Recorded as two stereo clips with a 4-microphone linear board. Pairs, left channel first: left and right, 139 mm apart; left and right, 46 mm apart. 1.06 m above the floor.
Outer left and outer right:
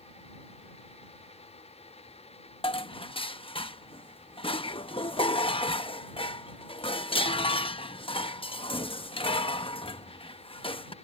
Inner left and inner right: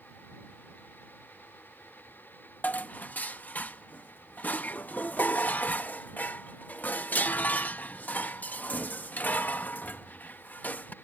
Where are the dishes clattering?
40° left (ahead or behind).